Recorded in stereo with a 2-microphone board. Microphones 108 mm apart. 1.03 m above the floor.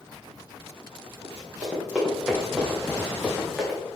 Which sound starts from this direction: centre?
Running footsteps, at 1.2 s.